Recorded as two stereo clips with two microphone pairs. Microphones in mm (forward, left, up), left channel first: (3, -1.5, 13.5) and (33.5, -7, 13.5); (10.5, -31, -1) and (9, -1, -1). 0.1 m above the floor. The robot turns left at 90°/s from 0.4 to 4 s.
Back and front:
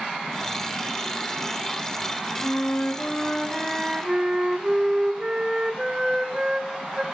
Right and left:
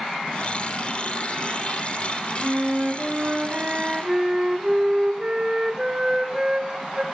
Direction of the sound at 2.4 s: Straight behind.